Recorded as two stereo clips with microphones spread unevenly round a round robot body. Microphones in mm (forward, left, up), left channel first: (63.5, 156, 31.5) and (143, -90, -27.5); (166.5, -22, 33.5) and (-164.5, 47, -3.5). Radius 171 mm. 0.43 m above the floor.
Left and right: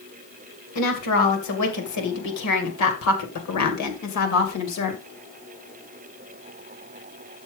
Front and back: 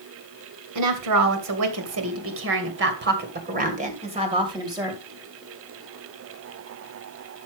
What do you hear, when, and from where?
0.8 s a woman speaking: 145° left, 2.5 m; by 5.0 s 90° left, 2.5 m